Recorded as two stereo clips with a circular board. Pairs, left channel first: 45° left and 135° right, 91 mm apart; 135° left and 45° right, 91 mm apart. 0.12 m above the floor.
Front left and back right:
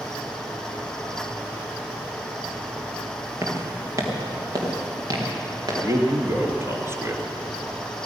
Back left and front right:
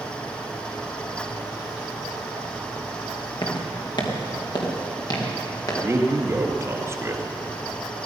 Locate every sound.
3.4 s footsteps: 165° left, 3 m; by 5.7 s straight behind, 5.5 m
5.8 s a man speaking: 95° right, 2 m